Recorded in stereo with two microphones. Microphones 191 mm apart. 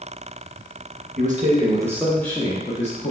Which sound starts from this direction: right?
A man speaking, at 1.2 s.